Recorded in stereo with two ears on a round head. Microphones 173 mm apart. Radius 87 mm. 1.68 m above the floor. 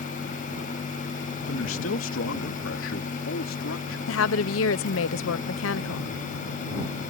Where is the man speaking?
80° left.